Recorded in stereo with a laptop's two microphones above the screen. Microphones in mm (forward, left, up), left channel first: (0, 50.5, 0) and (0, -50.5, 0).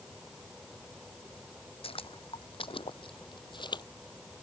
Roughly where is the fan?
Centre.